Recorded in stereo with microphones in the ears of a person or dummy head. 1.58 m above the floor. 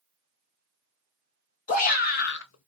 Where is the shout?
45° left (ahead or behind), 1.1 m; by 2.7 s 80° left, 0.5 m.